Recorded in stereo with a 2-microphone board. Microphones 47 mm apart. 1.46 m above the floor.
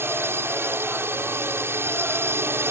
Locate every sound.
0.0 s a drone: 60° right (ahead or behind)